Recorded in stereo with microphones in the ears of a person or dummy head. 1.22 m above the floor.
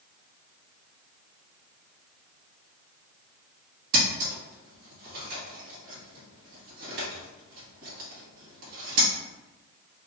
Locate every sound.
3.9 s scissors: 50° right (ahead or behind), 1.9 m